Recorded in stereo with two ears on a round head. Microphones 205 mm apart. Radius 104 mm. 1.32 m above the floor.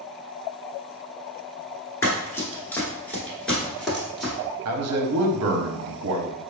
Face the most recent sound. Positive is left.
turn(degrees=-70)  # may be behind; listen again after turning